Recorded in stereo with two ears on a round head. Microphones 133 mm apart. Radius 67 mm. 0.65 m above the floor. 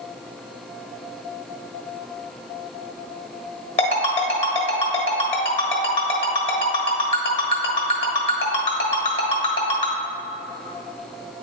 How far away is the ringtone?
About 1.5 m.